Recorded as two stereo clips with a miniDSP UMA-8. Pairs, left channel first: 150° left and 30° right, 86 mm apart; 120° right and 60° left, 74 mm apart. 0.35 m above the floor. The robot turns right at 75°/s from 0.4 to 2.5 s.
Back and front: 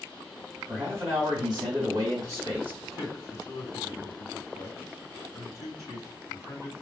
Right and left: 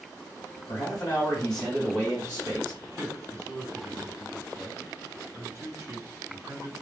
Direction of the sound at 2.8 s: 20° left.